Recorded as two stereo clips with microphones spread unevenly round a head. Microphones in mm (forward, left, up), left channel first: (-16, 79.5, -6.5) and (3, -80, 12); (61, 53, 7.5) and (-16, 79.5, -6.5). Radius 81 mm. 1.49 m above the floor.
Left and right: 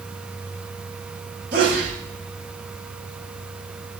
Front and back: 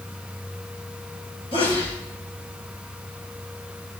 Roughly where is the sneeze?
Ahead right.